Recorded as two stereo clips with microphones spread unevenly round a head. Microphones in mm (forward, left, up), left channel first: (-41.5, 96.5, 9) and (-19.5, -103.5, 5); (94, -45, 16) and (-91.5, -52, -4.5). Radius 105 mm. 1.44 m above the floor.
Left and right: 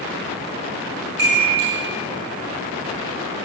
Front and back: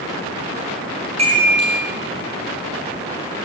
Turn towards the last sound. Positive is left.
turn(degrees=-120)